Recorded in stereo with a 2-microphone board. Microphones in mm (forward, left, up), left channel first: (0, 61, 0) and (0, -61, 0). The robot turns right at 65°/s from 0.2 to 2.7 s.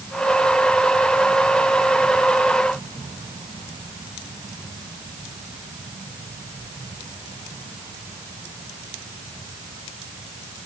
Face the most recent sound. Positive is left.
No sound to turn to.